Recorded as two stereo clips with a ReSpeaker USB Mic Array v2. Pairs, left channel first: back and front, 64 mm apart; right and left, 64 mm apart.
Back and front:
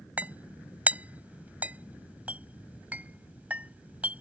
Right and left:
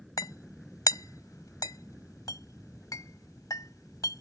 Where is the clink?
65° right.